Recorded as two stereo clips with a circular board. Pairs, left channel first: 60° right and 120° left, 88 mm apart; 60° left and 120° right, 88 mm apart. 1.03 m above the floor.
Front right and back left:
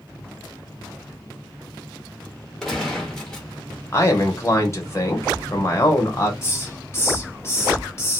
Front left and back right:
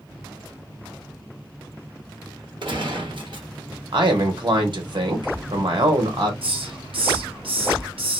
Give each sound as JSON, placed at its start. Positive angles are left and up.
{"t": 2.6, "sound": "a gunshot", "azimuth_deg": -145, "distance_m": 1.0}
{"t": 3.9, "sound": "a man speaking", "azimuth_deg": -110, "distance_m": 1.0}
{"t": 6.4, "sound": "a hiss", "azimuth_deg": -120, "distance_m": 0.8}